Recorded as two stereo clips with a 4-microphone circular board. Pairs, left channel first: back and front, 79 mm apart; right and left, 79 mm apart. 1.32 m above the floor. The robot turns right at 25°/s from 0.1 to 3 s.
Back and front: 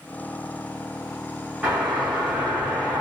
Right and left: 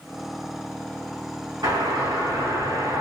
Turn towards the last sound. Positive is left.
turn(degrees=110)